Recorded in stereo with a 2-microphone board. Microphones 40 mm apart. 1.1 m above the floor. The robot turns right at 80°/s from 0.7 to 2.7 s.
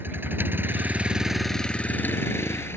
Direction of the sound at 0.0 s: 60° right.